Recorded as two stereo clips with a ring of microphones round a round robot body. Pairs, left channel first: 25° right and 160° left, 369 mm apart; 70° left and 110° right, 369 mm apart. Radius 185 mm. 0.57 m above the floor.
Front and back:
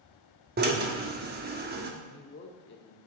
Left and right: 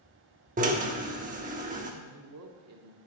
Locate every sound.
0.6 s a drill: 160° right, 1.1 m
2.0 s a man speaking: 75° right, 1.3 m